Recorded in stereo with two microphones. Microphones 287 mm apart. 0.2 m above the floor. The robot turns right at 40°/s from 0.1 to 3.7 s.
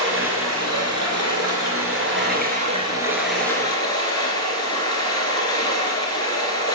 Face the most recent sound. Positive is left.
turn(degrees=15)